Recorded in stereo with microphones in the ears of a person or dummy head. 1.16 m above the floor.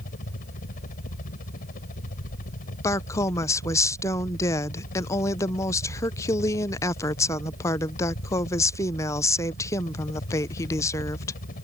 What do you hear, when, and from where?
0.0 s a helicopter: 45° left (ahead or behind)
2.8 s a woman speaking: 15° left (ahead or behind)